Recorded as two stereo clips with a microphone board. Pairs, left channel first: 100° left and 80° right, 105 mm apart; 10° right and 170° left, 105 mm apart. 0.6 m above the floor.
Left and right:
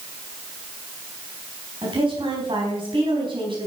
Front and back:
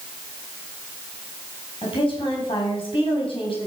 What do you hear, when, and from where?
1.8 s a woman speaking: 45° right, 4.5 m